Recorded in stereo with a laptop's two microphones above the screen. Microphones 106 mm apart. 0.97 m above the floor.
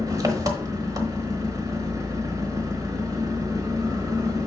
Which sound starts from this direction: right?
An engine running, at 0.0 s.